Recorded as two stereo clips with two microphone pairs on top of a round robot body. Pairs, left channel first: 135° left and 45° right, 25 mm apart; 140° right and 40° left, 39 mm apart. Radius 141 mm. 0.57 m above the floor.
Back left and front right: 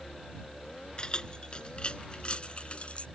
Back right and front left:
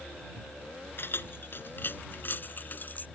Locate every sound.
1.0 s keys jangling: 170° right; by 3.1 s 175° left